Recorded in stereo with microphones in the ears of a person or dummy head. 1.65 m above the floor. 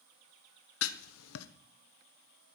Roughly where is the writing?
Left.